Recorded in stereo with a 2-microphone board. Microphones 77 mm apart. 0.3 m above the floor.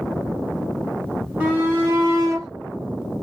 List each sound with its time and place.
1.4 s a shout: 25° right (ahead or behind), 2 m; by 2.5 s 40° right (ahead or behind), 1.4 m